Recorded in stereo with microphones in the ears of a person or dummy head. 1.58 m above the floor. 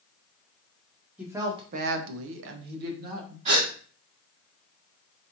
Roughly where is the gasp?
Right.